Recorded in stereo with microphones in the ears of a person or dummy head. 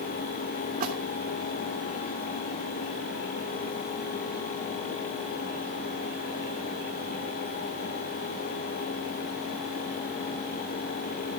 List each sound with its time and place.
0.8 s a splash: 45° right (ahead or behind), 3 m